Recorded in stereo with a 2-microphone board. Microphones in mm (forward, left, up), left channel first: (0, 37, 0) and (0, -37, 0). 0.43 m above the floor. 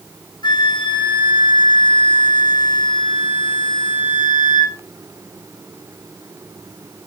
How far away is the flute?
About 1.4 m.